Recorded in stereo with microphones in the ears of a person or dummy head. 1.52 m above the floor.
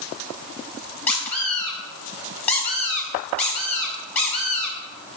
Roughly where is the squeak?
Centre.